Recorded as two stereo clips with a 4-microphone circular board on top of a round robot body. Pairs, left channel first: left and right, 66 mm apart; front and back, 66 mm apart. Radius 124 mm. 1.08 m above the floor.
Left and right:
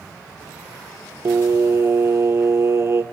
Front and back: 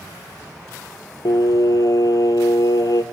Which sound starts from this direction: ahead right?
Singing, at 1.2 s.